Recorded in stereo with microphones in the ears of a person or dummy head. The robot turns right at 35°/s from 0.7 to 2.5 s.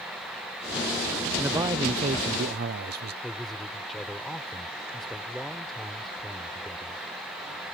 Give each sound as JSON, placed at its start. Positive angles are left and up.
{"t": 1.4, "sound": "a man speaking", "azimuth_deg": -170}
{"t": 3.2, "sound": "a man speaking", "side_deg": 0}